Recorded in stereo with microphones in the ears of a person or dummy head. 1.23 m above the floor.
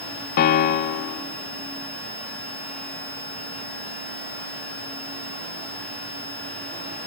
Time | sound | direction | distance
0.4 | a piano | 50° left (ahead or behind) | 0.9 m